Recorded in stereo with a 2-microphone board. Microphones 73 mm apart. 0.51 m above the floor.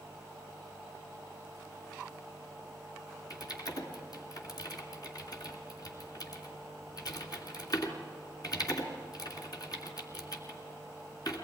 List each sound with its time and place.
3.3 s typing on a keyboard: 60° left (ahead or behind), 2.5 m